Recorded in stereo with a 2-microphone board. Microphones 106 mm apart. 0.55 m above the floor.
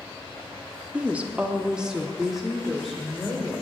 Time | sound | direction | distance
0.9 | a woman speaking | 15° right (ahead or behind) | 0.8 m